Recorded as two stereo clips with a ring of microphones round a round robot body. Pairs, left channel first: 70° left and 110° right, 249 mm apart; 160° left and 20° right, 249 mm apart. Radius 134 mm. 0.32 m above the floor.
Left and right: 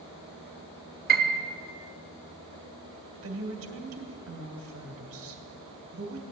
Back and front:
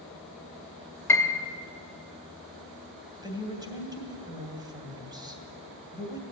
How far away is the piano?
About 1.4 m.